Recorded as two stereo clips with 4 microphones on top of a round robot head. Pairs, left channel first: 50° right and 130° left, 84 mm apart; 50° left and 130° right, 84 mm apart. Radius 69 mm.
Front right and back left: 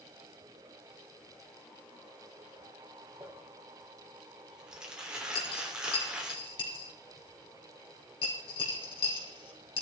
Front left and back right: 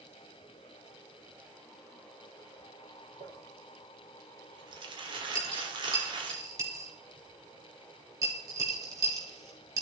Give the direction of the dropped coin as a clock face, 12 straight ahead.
3 o'clock.